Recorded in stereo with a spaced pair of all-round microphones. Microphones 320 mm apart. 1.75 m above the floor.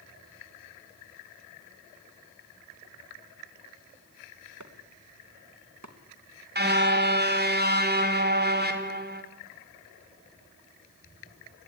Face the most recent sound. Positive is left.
turn(degrees=-30)  # may be behind; listen again after turning